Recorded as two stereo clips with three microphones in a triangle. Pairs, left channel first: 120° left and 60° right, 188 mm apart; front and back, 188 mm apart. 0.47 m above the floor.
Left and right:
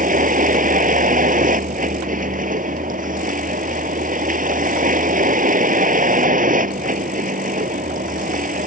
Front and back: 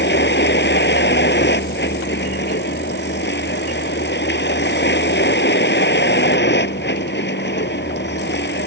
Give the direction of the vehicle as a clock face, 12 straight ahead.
1 o'clock.